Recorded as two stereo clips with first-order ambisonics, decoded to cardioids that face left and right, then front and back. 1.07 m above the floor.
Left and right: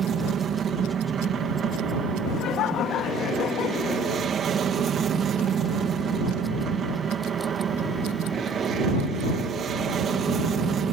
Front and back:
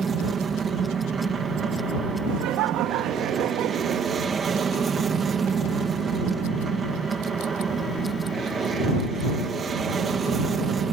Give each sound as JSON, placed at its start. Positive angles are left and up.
{"t": 0.0, "sound": "an aircraft", "azimuth_deg": -125}
{"t": 2.3, "sound": "laughter", "azimuth_deg": 140}